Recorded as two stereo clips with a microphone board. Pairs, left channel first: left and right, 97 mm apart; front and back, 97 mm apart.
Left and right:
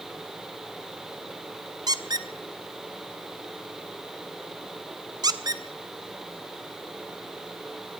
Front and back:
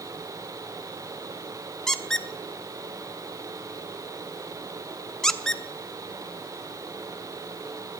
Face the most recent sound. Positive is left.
turn(degrees=-85)